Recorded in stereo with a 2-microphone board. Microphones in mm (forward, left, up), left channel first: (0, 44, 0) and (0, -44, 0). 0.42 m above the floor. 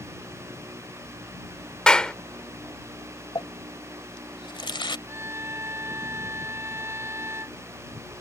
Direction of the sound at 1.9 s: 10° left (ahead or behind).